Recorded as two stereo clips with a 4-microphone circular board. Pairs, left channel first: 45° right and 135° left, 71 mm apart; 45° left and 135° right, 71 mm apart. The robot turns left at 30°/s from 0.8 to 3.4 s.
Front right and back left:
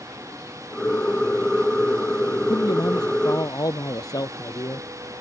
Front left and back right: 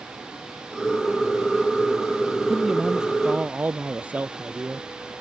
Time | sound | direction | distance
2.5 | a man speaking | 40° right | ?